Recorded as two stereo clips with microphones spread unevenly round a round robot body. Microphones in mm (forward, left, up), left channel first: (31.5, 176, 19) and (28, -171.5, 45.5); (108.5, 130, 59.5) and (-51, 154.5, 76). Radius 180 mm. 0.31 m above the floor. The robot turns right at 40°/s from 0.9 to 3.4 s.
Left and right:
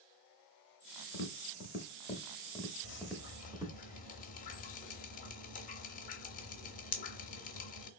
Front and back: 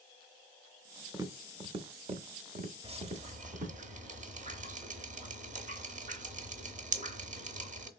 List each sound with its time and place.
1.1 s tapping: 100° left, 0.8 m; by 3.7 s 170° right, 0.8 m
2.8 s dripping: 120° left, 0.7 m; by 7.9 s 140° left, 0.7 m